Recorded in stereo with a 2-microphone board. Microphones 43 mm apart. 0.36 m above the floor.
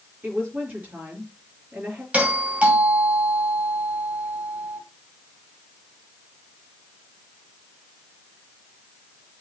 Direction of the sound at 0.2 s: 40° right (ahead or behind).